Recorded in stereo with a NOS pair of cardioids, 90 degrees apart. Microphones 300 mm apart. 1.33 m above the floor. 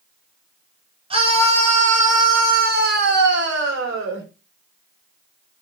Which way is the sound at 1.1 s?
20° right.